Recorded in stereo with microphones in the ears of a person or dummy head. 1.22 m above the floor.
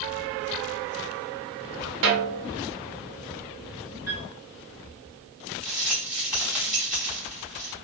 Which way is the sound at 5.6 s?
Centre (ahead or behind).